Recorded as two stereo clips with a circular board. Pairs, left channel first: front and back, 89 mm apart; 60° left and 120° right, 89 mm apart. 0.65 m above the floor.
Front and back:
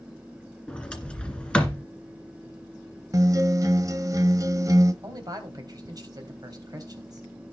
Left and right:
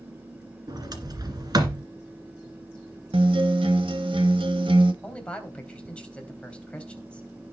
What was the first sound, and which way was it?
A sliding door, 80° right.